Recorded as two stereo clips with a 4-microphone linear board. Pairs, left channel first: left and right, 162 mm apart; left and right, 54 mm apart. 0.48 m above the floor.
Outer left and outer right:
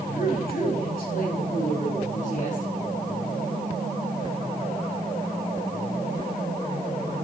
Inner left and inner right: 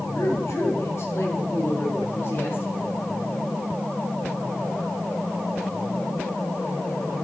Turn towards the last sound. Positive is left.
turn(degrees=50)  # may be behind; listen again after turning